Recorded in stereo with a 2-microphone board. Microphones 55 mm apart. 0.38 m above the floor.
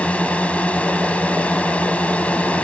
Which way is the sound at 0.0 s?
25° left (ahead or behind).